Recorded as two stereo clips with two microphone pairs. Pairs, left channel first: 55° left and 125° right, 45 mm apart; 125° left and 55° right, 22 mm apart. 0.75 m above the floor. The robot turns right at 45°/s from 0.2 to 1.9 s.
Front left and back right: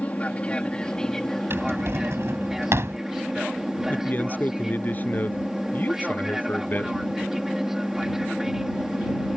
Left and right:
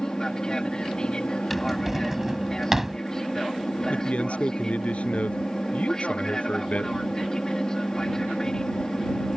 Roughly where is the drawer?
Behind right.